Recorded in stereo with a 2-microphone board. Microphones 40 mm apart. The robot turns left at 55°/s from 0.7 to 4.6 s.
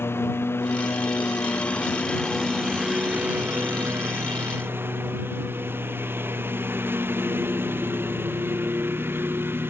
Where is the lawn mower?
100° left; by 9.7 s 115° right.